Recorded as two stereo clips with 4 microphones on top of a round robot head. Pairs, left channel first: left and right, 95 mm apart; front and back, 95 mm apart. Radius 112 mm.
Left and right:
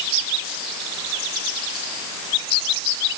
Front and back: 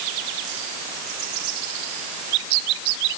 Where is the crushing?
I don't hear crushing.